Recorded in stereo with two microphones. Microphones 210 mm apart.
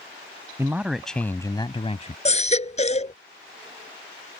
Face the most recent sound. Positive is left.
turn(degrees=35)  # may be behind; listen again after turning